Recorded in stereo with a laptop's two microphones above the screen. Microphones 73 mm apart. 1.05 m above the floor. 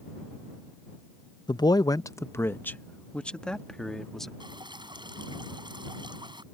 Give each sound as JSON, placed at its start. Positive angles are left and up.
{"t": 1.5, "sound": "a man speaking", "side_deg": 70}
{"t": 4.4, "sound": "dripping", "side_deg": -90}